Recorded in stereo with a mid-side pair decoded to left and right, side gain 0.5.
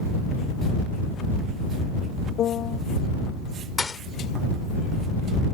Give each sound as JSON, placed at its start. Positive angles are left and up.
{"t": 2.4, "sound": "a piano", "azimuth_deg": 60}
{"t": 3.8, "sound": "a thud", "azimuth_deg": 20}